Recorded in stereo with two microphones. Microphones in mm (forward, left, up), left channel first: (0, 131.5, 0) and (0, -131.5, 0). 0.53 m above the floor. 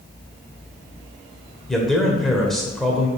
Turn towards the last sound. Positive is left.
turn(degrees=0)  # may be behind; listen again after turning